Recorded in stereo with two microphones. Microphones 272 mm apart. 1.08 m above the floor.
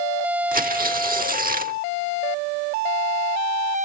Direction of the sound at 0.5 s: 30° right (ahead or behind).